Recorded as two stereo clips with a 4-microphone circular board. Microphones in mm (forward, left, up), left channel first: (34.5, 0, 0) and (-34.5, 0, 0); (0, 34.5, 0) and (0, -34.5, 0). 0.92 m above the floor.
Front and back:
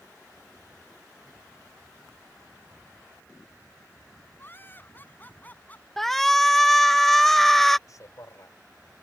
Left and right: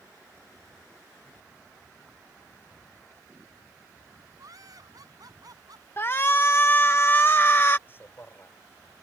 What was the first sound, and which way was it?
Laughter, 60° right.